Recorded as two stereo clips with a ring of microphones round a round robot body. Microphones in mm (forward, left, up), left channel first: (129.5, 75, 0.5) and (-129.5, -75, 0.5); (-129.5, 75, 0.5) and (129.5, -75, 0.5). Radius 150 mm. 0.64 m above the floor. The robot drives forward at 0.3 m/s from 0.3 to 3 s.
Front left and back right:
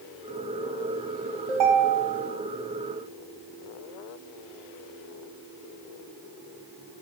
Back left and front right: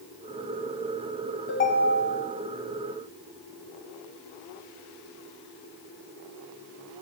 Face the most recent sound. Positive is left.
turn(degrees=-160)